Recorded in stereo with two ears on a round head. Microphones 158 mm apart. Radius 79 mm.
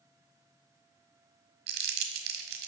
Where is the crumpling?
60° right (ahead or behind), 1.4 m.